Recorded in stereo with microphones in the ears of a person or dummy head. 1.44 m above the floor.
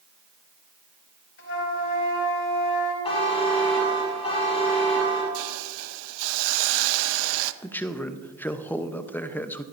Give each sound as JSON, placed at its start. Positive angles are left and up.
{"t": 1.4, "sound": "a flute", "side_deg": 75, "distance_m": 5.0}
{"t": 3.0, "sound": "a buzzer", "side_deg": 30, "distance_m": 6.5}
{"t": 5.3, "sound": "a hiss", "side_deg": -75, "distance_m": 0.7}
{"t": 7.6, "sound": "a man speaking", "side_deg": 10, "distance_m": 0.8}